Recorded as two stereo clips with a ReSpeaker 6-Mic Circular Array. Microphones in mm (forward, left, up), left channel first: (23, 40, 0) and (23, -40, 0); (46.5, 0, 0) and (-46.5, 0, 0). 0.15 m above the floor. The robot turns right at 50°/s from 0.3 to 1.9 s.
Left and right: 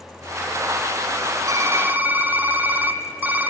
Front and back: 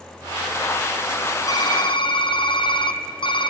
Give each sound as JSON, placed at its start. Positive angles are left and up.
{"t": 1.5, "sound": "typing on a keyboard", "azimuth_deg": -45, "distance_m": 1.0}